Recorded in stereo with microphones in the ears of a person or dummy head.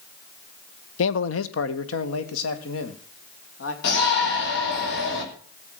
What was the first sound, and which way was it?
A man speaking, 80° left.